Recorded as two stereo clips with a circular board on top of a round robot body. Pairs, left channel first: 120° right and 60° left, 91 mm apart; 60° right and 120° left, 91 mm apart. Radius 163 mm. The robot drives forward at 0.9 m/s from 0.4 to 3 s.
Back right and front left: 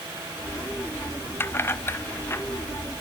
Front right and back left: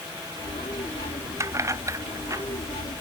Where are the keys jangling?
175° left.